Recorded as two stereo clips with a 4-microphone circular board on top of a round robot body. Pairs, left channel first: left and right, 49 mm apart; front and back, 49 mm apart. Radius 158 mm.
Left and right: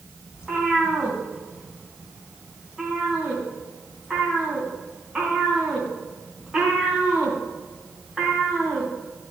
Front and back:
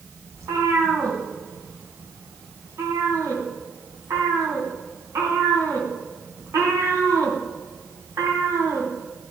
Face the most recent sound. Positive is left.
turn(degrees=-165)